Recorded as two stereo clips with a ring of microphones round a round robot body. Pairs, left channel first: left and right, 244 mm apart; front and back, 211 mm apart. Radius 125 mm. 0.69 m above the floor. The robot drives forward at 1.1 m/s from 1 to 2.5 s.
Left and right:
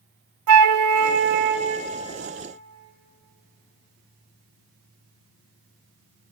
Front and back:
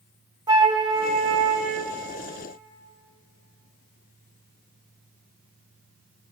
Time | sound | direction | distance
0.5 | a flute | 105° right | 0.5 m